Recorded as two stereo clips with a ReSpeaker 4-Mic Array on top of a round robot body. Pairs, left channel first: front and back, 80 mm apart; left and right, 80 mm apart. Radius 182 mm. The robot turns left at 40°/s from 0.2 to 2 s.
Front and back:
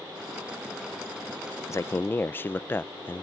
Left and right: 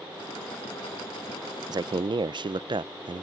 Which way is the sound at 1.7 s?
50° right.